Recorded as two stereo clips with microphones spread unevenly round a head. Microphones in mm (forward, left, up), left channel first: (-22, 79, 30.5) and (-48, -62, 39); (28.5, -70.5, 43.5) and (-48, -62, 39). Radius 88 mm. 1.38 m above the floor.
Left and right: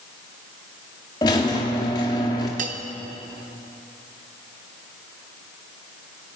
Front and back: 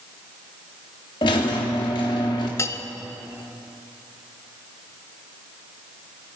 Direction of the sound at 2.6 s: 55° right.